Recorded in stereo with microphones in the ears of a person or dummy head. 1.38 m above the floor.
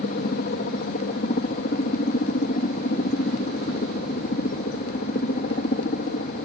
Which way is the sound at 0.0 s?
45° left (ahead or behind).